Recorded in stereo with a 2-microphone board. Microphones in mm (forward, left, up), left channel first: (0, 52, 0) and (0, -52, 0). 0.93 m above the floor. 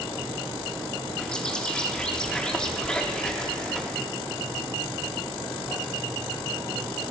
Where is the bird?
10° left (ahead or behind), 1.1 m.